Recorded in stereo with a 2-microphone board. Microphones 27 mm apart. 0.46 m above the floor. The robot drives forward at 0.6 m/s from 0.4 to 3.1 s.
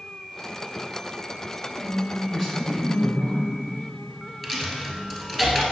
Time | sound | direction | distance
1.8 | a woman speaking | 25° left (ahead or behind) | 2.5 m
4.4 | a dropped coin | 10° left (ahead or behind) | 1.4 m